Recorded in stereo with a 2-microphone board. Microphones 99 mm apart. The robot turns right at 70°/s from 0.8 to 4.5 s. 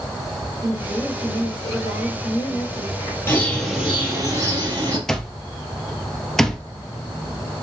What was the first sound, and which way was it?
A woman speaking, straight ahead.